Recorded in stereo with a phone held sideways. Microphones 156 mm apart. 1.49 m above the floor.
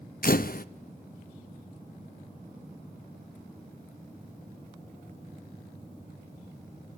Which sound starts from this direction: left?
A camera shutter, at 0.2 s.